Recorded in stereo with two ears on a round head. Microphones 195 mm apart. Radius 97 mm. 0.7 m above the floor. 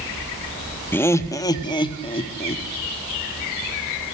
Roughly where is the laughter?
Centre.